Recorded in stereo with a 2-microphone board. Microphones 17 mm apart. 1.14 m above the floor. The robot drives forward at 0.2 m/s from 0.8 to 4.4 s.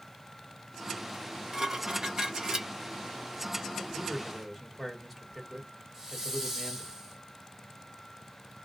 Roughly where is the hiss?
Right.